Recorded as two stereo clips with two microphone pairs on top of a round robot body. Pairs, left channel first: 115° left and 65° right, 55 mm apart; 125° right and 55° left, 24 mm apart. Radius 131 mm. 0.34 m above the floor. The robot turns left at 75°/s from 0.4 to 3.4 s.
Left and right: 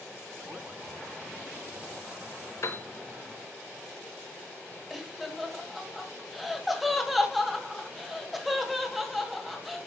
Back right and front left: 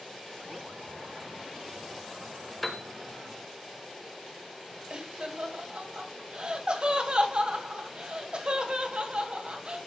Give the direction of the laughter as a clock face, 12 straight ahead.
11 o'clock.